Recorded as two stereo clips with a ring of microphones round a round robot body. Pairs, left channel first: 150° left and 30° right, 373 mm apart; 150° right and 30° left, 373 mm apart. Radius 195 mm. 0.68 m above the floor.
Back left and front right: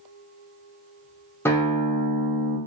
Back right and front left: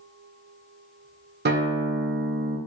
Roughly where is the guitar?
Left.